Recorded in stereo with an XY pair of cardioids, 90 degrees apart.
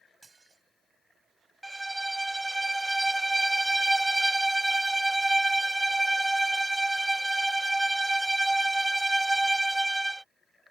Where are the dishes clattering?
25° right.